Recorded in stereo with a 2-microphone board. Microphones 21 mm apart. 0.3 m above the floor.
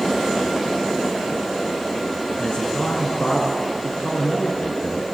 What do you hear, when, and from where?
2.4 s a man speaking: 70° left (ahead or behind), 3 m